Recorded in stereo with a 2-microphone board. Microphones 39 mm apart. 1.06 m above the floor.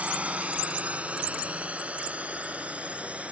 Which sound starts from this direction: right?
A drone, at 0.0 s.